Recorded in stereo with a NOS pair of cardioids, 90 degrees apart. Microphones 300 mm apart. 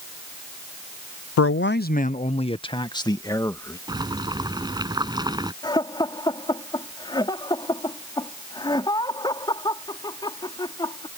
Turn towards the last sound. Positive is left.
turn(degrees=15)